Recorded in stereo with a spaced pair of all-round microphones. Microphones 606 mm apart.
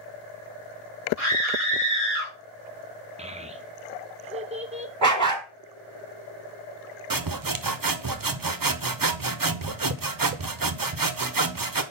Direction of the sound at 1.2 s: 20° left (ahead or behind).